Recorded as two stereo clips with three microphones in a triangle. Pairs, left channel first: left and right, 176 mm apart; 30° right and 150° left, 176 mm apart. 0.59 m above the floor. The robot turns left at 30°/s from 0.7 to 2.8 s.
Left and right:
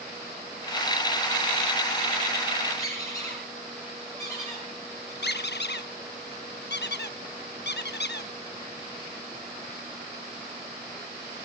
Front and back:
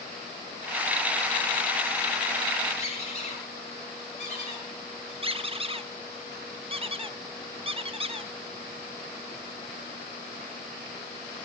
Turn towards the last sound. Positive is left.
turn(degrees=95)